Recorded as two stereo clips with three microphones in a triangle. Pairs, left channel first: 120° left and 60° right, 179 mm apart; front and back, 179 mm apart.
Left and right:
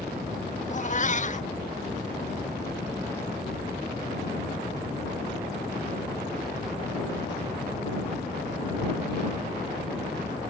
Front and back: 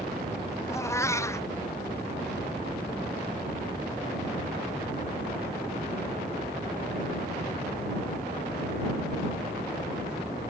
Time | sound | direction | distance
0.7 | a cat meowing | 75° left | ?